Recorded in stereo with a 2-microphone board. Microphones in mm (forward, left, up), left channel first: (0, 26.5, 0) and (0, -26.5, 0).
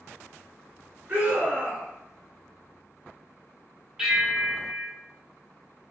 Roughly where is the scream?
Right.